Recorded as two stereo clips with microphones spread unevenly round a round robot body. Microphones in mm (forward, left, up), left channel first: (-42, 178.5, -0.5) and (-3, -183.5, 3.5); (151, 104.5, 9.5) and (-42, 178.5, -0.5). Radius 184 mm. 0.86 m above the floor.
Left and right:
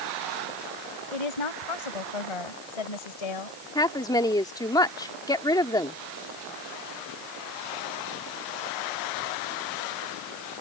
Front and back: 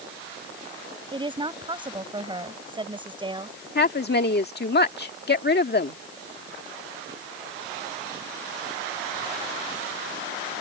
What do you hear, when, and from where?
1.1 s a woman speaking: 90° left
3.8 s a woman speaking: 15° left